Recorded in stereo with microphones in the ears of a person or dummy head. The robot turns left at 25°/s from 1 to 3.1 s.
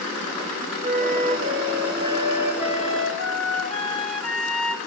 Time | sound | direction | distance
0.8 | a flute | 130° right | 3.5 m